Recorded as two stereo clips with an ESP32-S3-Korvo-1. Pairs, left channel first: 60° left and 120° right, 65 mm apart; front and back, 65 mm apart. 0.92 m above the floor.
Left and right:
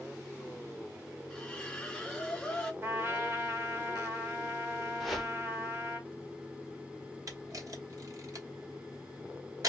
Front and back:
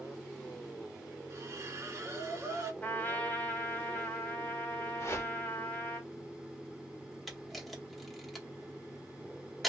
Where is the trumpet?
70° right, 1.5 m.